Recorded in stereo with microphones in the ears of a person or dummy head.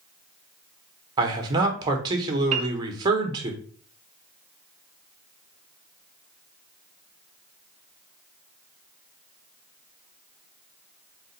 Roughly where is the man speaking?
Right.